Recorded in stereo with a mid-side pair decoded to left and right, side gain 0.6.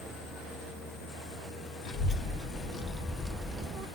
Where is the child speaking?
55° left, 1.7 m; by 3.9 s 50° right, 0.7 m.